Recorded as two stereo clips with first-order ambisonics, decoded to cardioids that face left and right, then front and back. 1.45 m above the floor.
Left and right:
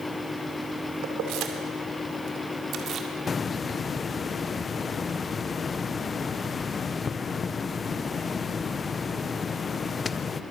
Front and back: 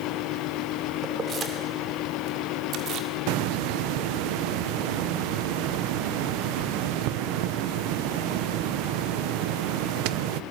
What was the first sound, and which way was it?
Keys jangling, 115° right.